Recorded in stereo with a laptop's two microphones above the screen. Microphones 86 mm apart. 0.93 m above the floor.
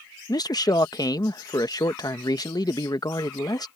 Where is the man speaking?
50° left (ahead or behind).